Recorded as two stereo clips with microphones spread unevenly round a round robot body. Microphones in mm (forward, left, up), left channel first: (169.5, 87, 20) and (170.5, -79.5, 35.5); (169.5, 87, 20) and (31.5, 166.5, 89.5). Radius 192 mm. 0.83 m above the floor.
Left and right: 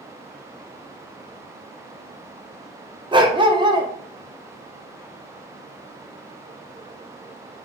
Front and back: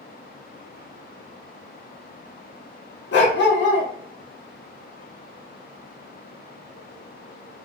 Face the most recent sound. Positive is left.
turn(degrees=-25)